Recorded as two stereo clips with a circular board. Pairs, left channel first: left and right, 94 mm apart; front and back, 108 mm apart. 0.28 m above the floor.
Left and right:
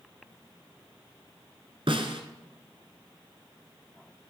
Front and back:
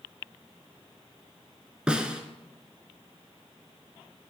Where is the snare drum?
100° right, 1.1 m.